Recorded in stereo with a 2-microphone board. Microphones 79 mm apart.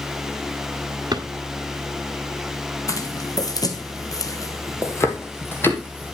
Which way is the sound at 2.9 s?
45° left (ahead or behind).